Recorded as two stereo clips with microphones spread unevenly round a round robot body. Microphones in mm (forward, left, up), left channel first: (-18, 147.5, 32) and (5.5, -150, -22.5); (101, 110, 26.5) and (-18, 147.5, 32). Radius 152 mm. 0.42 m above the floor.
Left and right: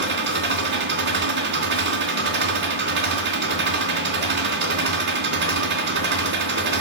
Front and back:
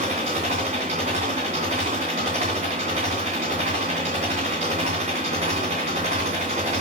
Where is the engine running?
140° right, 2.5 m.